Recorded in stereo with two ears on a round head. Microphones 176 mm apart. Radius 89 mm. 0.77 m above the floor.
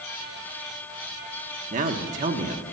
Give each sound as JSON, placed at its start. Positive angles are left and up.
{"t": 1.7, "sound": "a man speaking", "side_deg": -40, "distance_m": 1.2}